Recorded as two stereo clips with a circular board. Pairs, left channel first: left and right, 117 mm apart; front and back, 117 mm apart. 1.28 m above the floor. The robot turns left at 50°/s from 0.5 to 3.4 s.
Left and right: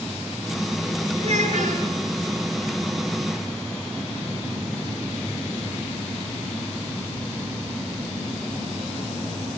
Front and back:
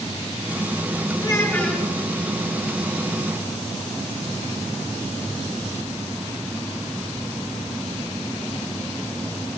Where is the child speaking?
60° right, 9.5 m; by 1.9 s 90° right, 9.5 m.